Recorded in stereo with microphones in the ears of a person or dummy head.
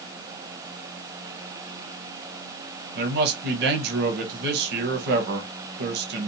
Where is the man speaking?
55° right (ahead or behind), 0.9 m.